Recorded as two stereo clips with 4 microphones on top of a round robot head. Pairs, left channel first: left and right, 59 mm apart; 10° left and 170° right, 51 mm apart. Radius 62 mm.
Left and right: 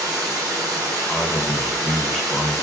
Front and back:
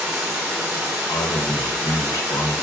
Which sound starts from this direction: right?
Running water, at 0.0 s.